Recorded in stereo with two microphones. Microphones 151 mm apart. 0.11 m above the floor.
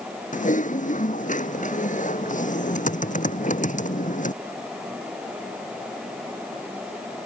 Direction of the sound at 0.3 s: 55° left (ahead or behind).